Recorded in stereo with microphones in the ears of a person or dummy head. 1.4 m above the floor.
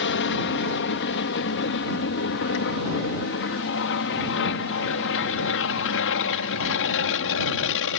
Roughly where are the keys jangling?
No keys jangling in this recording.